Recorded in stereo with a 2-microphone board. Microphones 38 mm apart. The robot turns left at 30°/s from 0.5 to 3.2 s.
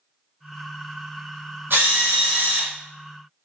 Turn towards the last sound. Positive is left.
turn(degrees=-130)